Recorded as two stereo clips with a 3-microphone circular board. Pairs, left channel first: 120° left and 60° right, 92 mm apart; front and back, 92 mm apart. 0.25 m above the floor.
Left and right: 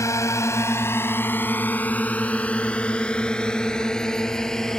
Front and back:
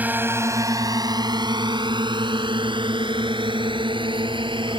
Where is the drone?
125° left; by 4.8 s 155° right.